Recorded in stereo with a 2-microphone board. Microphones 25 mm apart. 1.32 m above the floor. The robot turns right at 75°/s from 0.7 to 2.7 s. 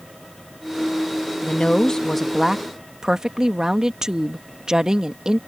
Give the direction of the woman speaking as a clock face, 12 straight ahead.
8 o'clock.